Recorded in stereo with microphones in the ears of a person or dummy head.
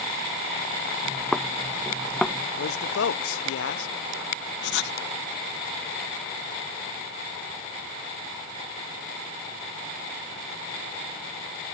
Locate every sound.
1.0 s footsteps: 5° left (ahead or behind)
2.6 s a man speaking: 80° left
4.6 s writing: 70° left (ahead or behind)